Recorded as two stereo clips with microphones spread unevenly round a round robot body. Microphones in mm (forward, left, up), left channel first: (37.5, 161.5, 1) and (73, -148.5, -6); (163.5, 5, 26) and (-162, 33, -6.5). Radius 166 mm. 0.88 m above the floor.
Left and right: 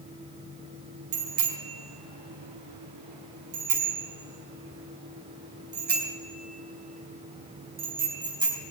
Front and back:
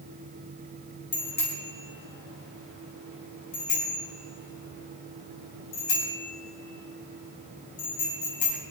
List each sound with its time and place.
1.1 s a bicycle bell: 65° right, 4 m; by 8.6 s 5° right, 5 m